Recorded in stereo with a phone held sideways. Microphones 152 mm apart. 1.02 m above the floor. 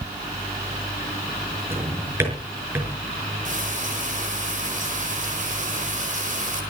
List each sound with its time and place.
1.7 s a drawer: 15° right (ahead or behind), 6 m
3.5 s frying: 55° right (ahead or behind), 4.5 m